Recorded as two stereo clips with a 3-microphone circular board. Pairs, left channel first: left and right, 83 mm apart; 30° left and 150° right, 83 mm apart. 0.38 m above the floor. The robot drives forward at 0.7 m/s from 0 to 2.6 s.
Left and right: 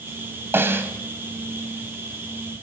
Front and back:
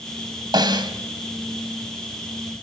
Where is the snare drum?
145° right, 2.5 m; by 0.9 s 150° right, 2.5 m.